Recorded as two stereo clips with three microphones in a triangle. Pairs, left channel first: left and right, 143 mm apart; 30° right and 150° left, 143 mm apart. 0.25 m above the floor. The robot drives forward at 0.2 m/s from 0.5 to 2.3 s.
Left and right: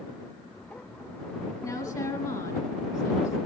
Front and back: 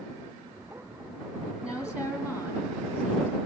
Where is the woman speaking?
70° left, 1.5 m; by 3.4 s 80° left, 1.5 m.